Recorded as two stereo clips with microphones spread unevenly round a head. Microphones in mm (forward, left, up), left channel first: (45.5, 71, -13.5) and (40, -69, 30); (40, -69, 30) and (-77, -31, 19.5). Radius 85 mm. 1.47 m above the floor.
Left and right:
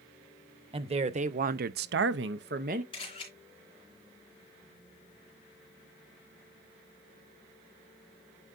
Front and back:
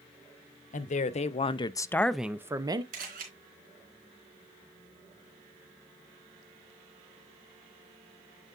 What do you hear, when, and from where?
0.7 s a woman speaking: 40° right, 1.2 m; by 2.8 s 145° right, 1.0 m
2.9 s a camera shutter: 155° left, 3.5 m